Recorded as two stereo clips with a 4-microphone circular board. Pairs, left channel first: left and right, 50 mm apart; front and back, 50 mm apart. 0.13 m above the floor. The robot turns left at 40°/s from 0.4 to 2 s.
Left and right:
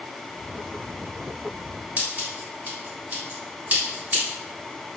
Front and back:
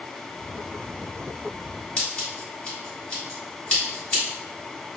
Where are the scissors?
60° right, 1.6 m; by 4.2 s 65° right, 1.6 m.